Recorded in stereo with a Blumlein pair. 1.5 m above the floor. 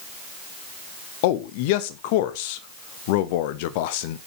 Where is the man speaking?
50° left, 1.0 m.